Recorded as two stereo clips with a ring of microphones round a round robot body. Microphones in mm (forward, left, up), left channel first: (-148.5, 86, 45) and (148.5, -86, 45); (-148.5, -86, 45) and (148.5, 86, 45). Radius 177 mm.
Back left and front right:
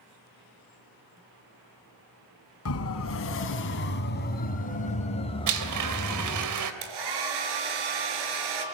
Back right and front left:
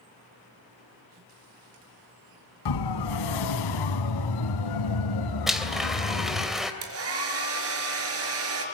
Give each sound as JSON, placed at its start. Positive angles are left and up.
{"t": 2.6, "sound": "a siren", "azimuth_deg": -165, "distance_m": 4.0}
{"t": 5.5, "sound": "a blender", "azimuth_deg": -60, "distance_m": 3.0}
{"t": 6.8, "sound": "a hair dryer", "azimuth_deg": -20, "distance_m": 4.5}